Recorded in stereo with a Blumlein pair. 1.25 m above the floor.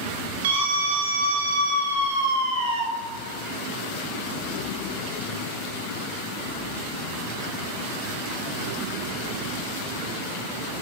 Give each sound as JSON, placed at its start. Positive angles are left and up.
{"t": 0.4, "sound": "a scream", "azimuth_deg": -60, "distance_m": 7.0}